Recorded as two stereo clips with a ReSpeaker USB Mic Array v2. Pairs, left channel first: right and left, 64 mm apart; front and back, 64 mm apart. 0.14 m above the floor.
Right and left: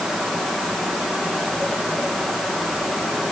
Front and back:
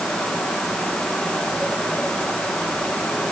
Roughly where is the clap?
No clap in this recording.